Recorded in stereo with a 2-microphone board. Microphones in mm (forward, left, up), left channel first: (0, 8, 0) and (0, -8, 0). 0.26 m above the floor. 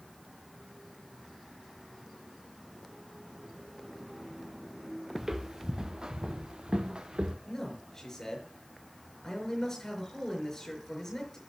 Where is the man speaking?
35° left (ahead or behind), 5.5 m.